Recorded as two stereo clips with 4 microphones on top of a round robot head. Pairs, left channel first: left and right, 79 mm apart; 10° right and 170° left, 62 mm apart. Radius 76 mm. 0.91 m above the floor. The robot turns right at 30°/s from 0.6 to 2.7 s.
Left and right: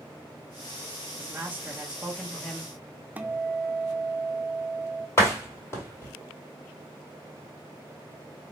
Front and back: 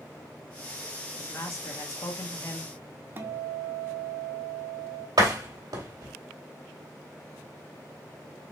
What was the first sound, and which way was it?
A man speaking, 35° right.